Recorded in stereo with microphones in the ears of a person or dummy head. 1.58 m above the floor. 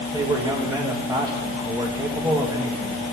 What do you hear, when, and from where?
0.1 s a man speaking: 10° right (ahead or behind), 1.9 m